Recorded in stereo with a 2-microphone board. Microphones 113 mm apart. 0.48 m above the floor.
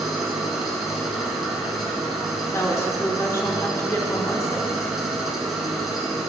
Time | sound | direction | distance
0.0 | an engine running | centre (ahead or behind) | 1.3 m
2.5 | a woman speaking | 25° left (ahead or behind) | 0.8 m